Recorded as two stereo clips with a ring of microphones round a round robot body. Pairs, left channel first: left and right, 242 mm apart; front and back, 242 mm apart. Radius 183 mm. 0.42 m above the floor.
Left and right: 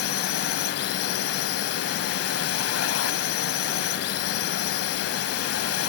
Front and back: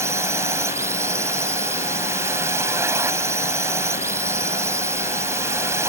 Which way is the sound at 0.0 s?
100° left.